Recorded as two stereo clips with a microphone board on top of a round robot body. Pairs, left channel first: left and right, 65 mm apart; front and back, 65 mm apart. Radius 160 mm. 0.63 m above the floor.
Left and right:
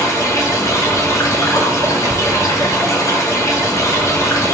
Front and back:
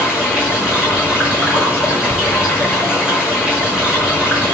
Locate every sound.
0.0 s running water: 110° left, 1.3 m